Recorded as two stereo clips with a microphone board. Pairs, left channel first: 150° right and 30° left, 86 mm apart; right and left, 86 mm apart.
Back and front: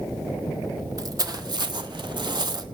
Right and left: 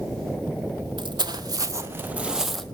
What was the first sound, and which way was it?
Footsteps, 75° left.